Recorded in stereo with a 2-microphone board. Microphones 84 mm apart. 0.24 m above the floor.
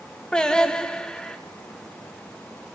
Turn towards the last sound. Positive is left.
turn(degrees=10)  # may be behind; listen again after turning